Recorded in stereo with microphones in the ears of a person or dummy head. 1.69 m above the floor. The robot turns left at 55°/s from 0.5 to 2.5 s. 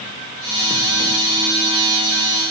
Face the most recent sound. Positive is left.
No sound to turn to.